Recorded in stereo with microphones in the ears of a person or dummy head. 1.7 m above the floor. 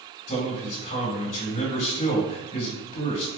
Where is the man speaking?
35° left (ahead or behind), 1.9 m.